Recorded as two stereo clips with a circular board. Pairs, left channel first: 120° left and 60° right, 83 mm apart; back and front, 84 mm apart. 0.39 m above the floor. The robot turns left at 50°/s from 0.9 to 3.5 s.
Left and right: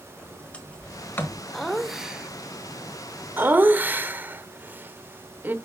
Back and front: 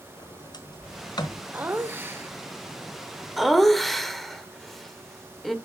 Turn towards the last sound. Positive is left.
turn(degrees=-95)